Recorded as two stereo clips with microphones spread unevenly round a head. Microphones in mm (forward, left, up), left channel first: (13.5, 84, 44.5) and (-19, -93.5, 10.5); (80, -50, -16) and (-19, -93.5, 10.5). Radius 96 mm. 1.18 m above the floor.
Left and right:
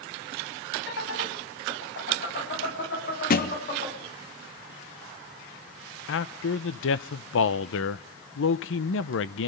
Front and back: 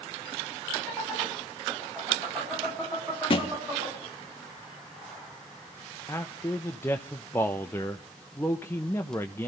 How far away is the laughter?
About 8.5 m.